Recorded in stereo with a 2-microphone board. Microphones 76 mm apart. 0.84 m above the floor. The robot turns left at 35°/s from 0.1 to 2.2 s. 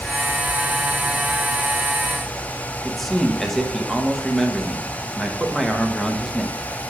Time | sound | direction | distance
2.9 | a man speaking | centre (ahead or behind) | 1.0 m